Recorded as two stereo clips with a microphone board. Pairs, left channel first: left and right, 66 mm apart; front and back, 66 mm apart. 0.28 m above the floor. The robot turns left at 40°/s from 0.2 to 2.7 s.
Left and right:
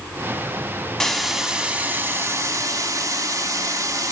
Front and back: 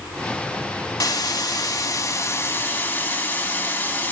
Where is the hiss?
10° left, 0.7 m; by 4.1 s 60° right, 0.7 m.